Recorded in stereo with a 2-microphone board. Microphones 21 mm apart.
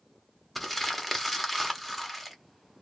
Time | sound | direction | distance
0.6 | crumpling | centre (ahead or behind) | 1.1 m